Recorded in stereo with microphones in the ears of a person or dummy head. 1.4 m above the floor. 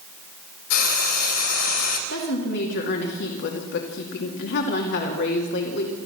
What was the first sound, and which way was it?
Frying, 70° left (ahead or behind).